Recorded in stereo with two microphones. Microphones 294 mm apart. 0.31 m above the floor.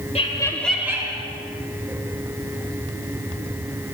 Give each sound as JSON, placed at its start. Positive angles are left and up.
{"t": 0.1, "sound": "laughter", "side_deg": 20, "distance_m": 1.0}